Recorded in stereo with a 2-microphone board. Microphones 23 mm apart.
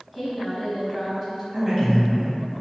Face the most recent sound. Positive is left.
turn(degrees=-25)  # may be behind; listen again after turning